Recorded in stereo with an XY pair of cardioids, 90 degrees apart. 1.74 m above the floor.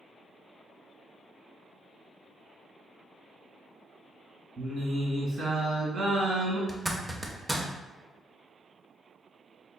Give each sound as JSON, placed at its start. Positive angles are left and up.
{"t": 4.6, "sound": "singing", "azimuth_deg": -55, "distance_m": 2.0}
{"t": 6.7, "sound": "a zipper", "azimuth_deg": -10, "distance_m": 0.6}